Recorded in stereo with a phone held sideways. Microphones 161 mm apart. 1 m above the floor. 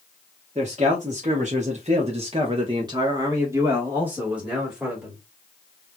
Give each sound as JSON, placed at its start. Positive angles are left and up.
{"t": 0.6, "sound": "a man speaking", "side_deg": -45, "distance_m": 1.2}